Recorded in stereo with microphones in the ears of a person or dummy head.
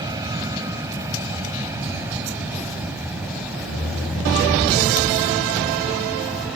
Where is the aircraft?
20° right (ahead or behind); by 6.6 s centre (ahead or behind).